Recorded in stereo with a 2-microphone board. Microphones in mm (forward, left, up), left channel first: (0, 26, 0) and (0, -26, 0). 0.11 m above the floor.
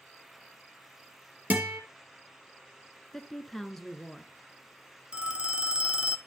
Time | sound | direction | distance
1.5 | a guitar | 35° right (ahead or behind) | 2.5 m
3.1 | a woman speaking | 5° left (ahead or behind) | 1.1 m
5.1 | a phone ringing | 20° right (ahead or behind) | 1.0 m